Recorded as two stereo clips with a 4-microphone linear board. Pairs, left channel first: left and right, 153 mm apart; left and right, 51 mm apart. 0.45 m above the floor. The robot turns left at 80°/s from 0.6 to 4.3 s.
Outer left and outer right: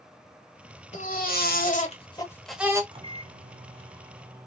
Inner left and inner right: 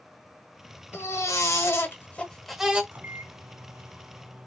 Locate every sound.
0.9 s a baby crying: 125° left, 1.3 m; by 2.8 s 25° right, 1.3 m
2.9 s a microwave: 50° right, 0.7 m; by 4.5 s 160° right, 0.7 m